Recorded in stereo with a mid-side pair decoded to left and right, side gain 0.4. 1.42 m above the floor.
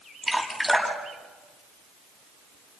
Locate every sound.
0.2 s dripping: straight ahead, 6.5 m